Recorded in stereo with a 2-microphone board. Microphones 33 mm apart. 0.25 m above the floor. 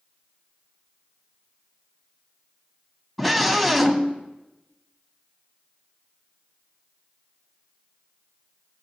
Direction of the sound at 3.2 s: 5° left (ahead or behind).